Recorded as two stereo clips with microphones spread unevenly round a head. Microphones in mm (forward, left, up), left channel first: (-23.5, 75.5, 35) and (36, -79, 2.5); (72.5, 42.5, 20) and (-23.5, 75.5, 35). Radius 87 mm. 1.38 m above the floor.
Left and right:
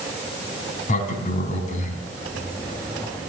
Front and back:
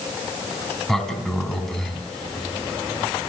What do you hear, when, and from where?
0.9 s a sliding door: 70° left, 3.5 m